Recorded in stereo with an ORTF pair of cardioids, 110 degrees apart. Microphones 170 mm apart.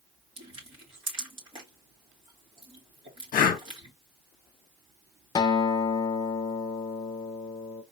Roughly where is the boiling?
I don't hear boiling.